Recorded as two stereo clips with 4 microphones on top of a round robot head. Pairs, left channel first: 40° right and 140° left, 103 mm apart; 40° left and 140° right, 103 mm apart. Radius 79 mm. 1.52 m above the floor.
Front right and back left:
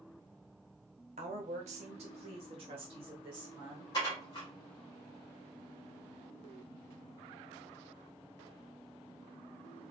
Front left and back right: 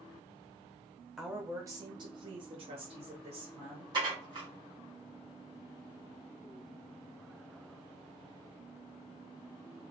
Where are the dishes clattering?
95° right, 1.2 m.